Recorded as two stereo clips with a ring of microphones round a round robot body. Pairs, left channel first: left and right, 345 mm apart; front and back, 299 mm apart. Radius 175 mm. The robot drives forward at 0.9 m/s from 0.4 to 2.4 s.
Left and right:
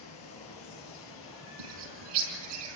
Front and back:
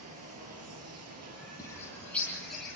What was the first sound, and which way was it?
Running water, 140° left.